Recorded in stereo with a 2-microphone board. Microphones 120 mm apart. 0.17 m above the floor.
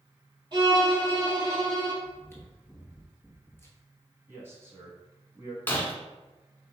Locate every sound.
0.5 s a violin: 40° right (ahead or behind), 1.8 m
2.0 s chewing: 20° left (ahead or behind), 1.0 m
4.3 s a man speaking: 20° right (ahead or behind), 1.4 m
5.7 s breaking glass: 20° left (ahead or behind), 0.9 m